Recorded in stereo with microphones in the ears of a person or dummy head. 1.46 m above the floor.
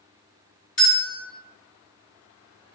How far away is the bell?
About 1.4 m.